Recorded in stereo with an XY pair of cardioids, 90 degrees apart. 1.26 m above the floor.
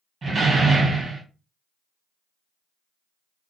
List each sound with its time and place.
0.2 s a door slam: 50° right, 1.2 m